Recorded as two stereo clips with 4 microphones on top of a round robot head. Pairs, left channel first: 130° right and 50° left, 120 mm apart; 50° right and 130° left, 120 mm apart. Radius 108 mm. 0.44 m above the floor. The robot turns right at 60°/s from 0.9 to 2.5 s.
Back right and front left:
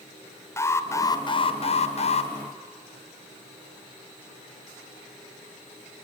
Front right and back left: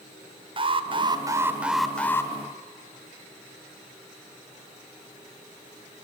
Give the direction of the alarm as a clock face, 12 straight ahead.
6 o'clock.